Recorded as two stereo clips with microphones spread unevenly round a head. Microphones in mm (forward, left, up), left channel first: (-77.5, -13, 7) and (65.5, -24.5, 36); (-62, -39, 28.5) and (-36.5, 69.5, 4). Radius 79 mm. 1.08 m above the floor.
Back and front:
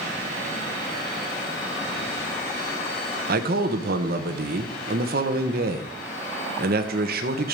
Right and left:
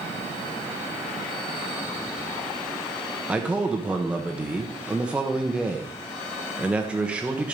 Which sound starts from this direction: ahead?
A man speaking, at 3.3 s.